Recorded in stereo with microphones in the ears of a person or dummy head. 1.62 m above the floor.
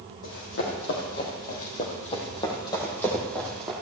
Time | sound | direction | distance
0.2 | running footsteps | 65° left (ahead or behind) | 5 m